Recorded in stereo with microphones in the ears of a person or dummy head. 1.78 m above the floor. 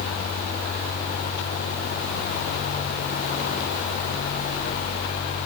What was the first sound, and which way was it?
Only background noise.